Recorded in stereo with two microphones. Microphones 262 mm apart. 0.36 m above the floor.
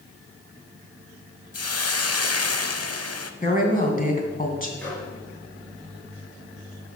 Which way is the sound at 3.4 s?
30° left (ahead or behind).